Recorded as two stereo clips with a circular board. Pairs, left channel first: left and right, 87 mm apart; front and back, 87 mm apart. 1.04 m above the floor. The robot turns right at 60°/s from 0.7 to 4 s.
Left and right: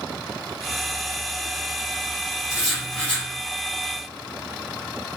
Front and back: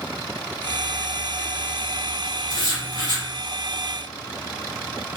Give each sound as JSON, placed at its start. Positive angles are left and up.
{"t": 2.5, "sound": "writing", "azimuth_deg": -15, "distance_m": 0.9}